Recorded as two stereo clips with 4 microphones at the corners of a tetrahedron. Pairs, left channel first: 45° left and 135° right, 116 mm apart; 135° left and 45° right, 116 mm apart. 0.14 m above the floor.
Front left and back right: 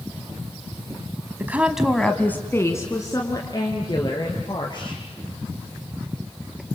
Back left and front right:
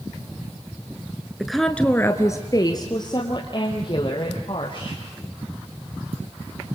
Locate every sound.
1.4 s a woman speaking: 120° right, 1.2 m; by 5.0 s 90° left, 4 m